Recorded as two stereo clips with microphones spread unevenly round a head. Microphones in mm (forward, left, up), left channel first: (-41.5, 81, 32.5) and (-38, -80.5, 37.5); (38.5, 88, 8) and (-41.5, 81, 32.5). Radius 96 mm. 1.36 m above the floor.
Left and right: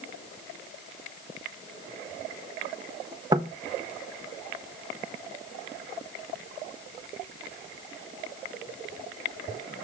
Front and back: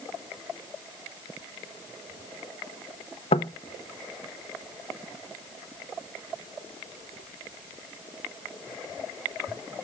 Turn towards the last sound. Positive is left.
turn(degrees=-20)